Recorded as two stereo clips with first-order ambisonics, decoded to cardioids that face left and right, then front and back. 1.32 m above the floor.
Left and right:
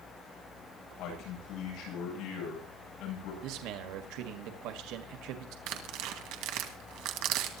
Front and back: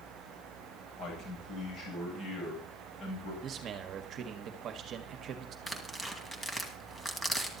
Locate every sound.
1.0 s a man speaking: 55° left, 9 m
3.4 s a man speaking: 120° right, 1.7 m
5.7 s tearing paper: 80° right, 2 m